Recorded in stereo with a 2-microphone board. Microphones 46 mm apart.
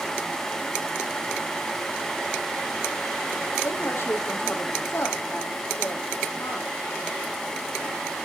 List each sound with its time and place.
3.6 s a woman speaking: 50° left (ahead or behind), 4 m